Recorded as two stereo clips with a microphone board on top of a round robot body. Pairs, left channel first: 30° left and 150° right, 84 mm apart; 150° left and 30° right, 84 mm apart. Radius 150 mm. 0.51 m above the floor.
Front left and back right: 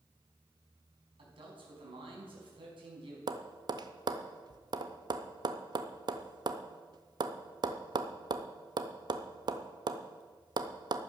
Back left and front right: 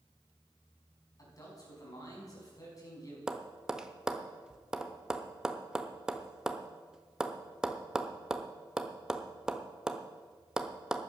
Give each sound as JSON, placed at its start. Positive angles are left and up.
{"t": 1.2, "sound": "a man speaking", "azimuth_deg": -165, "distance_m": 5.0}
{"t": 3.3, "sound": "tapping", "azimuth_deg": -115, "distance_m": 0.8}